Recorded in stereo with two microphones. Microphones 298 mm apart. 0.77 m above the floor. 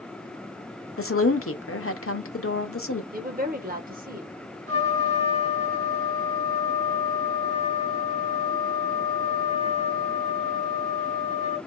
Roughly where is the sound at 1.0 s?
Left.